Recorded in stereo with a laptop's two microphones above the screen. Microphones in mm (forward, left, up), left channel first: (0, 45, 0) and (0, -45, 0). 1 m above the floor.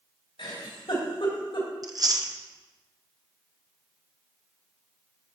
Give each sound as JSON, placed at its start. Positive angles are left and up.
{"t": 0.4, "sound": "a giggle", "side_deg": 80, "distance_m": 3.0}
{"t": 1.8, "sound": "chewing", "side_deg": -45, "distance_m": 0.9}